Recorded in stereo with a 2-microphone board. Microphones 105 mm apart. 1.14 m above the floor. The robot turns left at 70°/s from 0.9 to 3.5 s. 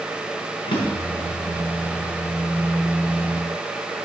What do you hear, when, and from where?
0.7 s a drawer: 55° left (ahead or behind), 5.5 m; by 1.3 s 80° left, 5.5 m